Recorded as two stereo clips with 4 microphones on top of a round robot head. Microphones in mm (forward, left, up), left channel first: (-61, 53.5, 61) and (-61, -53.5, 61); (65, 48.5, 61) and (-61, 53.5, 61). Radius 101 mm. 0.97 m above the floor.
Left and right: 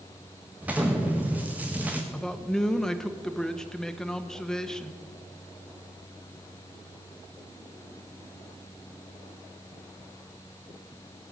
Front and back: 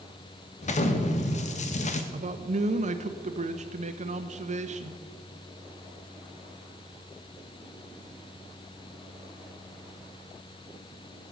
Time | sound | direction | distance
0.6 | an explosion | 15° right | 1.3 m
2.1 | a man speaking | 175° left | 1.2 m